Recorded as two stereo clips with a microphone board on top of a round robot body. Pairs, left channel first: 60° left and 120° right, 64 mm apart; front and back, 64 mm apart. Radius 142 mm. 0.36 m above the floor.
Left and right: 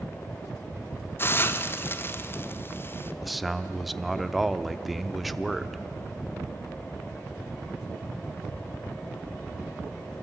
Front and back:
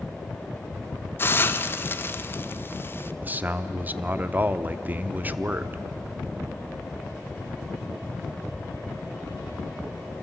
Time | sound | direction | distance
1.2 | a hiss | 30° left | 1.1 m
3.2 | a man speaking | 150° left | 1.0 m